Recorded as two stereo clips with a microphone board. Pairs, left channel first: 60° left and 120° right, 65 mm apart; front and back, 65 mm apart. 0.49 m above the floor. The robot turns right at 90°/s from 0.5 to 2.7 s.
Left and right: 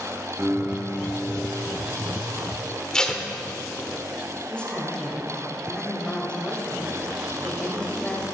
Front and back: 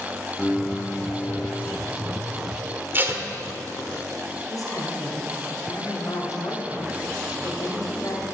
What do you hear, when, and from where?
0.4 s a piano: 75° right, 1.2 m; by 1.8 s 45° left, 1.2 m
2.9 s tape being pulled: 135° left, 1.1 m
4.5 s a woman speaking: 15° right, 2.5 m